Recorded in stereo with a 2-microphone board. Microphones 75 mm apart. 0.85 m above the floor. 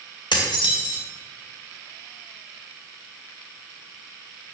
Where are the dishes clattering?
80° left, 3 m.